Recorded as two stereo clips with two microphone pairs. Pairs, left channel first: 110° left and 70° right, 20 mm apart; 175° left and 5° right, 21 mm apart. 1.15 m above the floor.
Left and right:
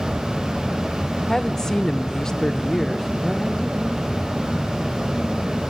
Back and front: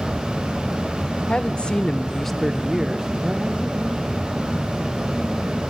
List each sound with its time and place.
1.3 s a woman speaking: 175° left, 0.9 m; by 4.3 s 30° left, 1.8 m